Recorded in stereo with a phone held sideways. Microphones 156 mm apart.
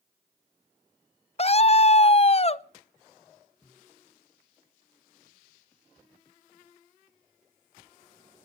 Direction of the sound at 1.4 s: 40° left (ahead or behind).